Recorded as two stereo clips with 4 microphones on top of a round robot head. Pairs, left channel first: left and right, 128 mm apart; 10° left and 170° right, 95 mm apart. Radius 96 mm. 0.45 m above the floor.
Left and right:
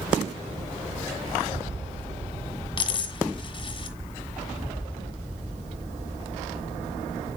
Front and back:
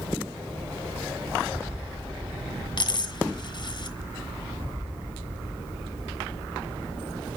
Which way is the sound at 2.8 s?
40° left.